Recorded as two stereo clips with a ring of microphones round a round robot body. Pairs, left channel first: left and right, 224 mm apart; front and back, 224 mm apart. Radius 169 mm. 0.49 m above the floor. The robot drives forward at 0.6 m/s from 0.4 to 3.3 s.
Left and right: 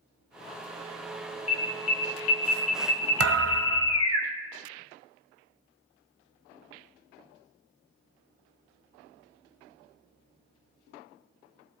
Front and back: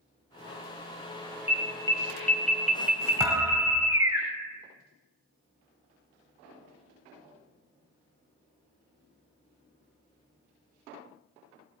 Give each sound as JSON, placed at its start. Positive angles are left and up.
{"t": 1.5, "sound": "an alarm", "azimuth_deg": 70, "distance_m": 2.0}
{"t": 3.2, "sound": "a thud", "azimuth_deg": -100, "distance_m": 0.9}